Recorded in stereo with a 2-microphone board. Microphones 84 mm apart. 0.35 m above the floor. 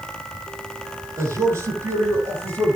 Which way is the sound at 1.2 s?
30° right (ahead or behind).